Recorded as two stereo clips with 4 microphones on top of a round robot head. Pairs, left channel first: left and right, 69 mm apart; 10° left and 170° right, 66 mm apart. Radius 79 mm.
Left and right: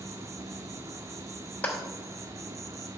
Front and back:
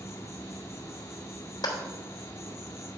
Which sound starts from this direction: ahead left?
A clap, at 1.6 s.